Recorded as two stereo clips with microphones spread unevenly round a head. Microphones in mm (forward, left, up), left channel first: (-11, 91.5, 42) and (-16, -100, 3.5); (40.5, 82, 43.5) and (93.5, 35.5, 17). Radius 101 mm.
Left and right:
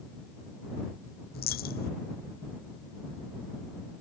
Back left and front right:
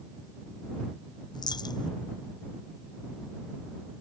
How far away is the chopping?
No chopping in this recording.